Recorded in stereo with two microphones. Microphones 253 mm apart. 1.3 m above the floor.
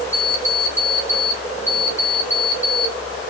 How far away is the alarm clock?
About 1.7 m.